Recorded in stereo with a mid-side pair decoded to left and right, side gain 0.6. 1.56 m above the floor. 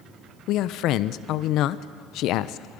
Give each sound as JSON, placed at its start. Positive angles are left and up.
{"t": 0.5, "sound": "a man speaking", "azimuth_deg": 65, "distance_m": 0.8}